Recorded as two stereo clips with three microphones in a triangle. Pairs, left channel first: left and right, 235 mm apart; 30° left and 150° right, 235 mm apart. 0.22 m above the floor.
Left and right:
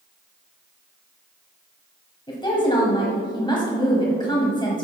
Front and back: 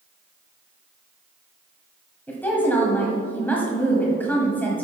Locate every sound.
2.3 s a woman speaking: 95° left, 1.5 m